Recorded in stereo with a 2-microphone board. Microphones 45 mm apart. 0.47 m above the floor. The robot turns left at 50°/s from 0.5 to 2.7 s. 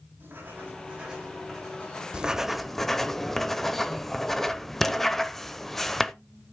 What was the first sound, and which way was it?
Writing, 130° right.